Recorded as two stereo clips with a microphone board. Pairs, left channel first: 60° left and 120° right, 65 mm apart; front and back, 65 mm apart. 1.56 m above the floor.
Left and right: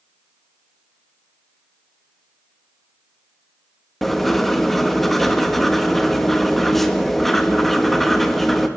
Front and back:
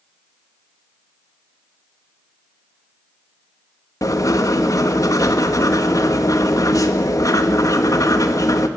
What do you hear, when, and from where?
4.0 s writing: 30° right, 1.6 m